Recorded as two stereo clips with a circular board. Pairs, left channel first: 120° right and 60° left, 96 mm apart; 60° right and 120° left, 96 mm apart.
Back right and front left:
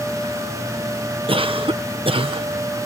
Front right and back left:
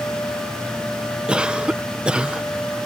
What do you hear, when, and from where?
1.3 s a cough: 40° left